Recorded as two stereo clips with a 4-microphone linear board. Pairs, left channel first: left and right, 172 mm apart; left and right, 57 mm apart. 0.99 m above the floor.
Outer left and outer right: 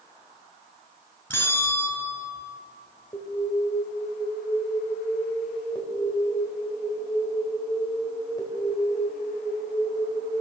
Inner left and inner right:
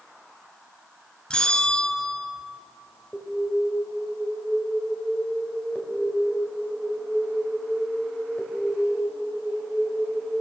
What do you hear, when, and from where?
1.3 s a bell: 10° left (ahead or behind), 3 m
3.1 s an alarm: 20° left (ahead or behind), 4 m